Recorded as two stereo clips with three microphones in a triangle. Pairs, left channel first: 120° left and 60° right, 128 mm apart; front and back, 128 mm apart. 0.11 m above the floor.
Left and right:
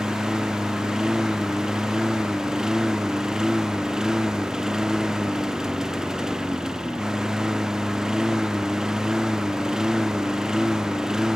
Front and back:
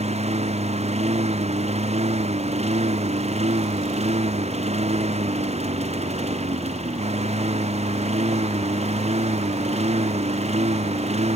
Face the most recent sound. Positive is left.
turn(degrees=-145)